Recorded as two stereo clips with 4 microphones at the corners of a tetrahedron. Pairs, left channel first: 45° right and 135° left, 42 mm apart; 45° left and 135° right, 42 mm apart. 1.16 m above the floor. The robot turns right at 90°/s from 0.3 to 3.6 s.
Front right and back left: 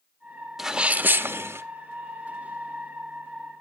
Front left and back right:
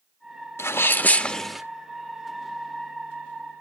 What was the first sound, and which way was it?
A sneeze, 55° left.